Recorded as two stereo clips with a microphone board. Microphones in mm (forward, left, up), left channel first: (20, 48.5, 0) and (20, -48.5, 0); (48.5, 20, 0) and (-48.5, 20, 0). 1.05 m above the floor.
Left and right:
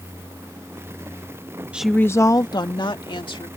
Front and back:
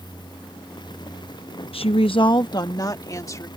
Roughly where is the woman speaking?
Ahead.